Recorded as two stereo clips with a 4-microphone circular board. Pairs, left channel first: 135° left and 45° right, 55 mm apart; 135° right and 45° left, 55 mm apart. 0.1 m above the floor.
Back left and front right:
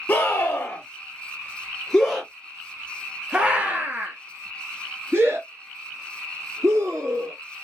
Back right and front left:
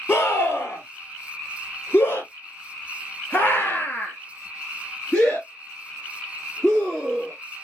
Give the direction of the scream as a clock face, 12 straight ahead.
6 o'clock.